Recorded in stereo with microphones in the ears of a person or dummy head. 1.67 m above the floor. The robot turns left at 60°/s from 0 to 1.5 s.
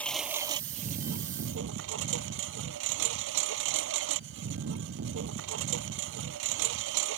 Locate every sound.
0.0 s a lawn mower: 10° left; by 7.2 s 80° right